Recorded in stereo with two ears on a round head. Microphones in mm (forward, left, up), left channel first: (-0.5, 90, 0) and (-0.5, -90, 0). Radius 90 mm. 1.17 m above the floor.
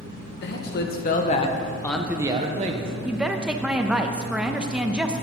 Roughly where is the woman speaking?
Centre.